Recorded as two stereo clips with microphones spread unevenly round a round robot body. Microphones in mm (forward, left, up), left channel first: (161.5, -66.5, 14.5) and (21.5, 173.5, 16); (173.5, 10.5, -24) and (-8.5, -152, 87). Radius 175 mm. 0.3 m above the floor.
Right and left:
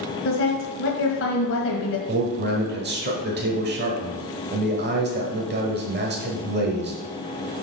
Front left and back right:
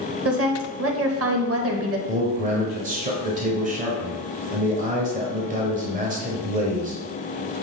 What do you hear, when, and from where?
0.2 s a woman speaking: 95° right, 1.4 m
2.1 s a man speaking: 140° left, 1.1 m